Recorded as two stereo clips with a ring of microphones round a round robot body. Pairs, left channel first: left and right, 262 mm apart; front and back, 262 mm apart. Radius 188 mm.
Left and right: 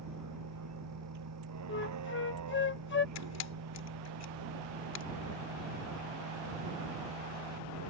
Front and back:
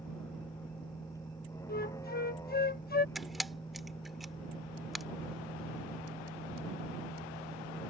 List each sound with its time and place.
0.0 s a vehicle: 85° right
1.7 s a flute: 50° left
3.1 s a camera shutter: 90° left